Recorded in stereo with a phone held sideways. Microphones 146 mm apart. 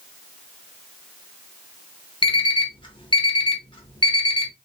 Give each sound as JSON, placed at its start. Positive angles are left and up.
{"t": 2.2, "sound": "an alarm clock", "side_deg": 35, "distance_m": 1.1}